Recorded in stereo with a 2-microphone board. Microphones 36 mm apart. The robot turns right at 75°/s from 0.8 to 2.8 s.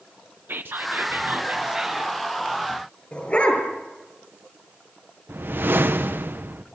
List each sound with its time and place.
0.5 s whispering: 95° right, 0.8 m; by 2.2 s 10° left, 0.8 m
3.1 s a dog barking: 35° left (ahead or behind), 6 m
5.3 s a whoosh: 70° right (ahead or behind), 1.1 m